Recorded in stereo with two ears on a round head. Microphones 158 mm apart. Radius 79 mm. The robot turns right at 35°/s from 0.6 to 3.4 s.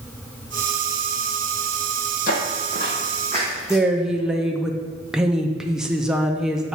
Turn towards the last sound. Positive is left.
turn(degrees=-5)  # may be behind; listen again after turning